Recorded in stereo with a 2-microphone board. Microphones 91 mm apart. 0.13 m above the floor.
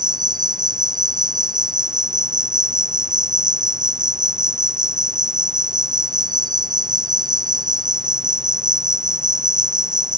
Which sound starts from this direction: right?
An insect, at 0.0 s.